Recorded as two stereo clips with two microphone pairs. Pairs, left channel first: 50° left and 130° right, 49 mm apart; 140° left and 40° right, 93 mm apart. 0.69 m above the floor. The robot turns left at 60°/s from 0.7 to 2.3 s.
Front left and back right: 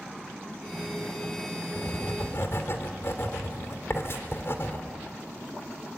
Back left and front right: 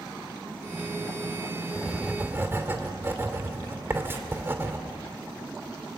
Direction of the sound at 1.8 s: 55° left.